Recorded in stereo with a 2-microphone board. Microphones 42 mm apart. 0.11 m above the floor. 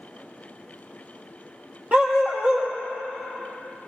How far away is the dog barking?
About 1.7 m.